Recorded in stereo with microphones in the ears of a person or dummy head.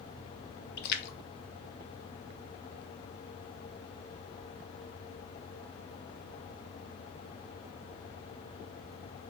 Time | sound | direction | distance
0.8 | a splash | 60° left (ahead or behind) | 1.3 m